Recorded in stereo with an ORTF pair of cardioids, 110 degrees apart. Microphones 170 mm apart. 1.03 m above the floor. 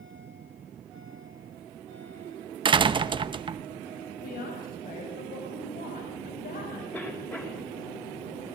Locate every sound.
2.6 s a door slam: 30° right, 0.8 m
4.2 s a woman speaking: 60° left, 6.5 m
6.9 s a cough: 10° left, 6 m